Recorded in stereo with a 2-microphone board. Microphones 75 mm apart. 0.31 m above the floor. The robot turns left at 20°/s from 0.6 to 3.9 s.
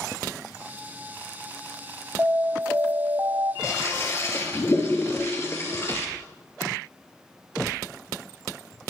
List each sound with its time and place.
2.2 s an alarm: 30° right (ahead or behind), 1.0 m; by 3.5 s 50° right (ahead or behind), 1.0 m
3.6 s a toilet flushing: 40° left (ahead or behind), 2.5 m; by 6.1 s 35° left (ahead or behind), 2.5 m